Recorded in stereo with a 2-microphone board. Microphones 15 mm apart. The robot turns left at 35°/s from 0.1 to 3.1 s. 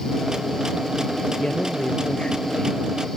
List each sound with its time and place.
1.4 s a man speaking: 105° left; by 2.9 s 55° left